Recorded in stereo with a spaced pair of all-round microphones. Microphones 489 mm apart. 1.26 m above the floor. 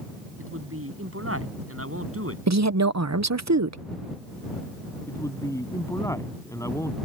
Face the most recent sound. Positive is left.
turn(degrees=5)  # may be behind; listen again after turning